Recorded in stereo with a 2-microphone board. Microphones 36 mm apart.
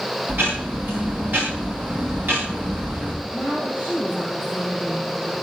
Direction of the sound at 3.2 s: 45° right (ahead or behind).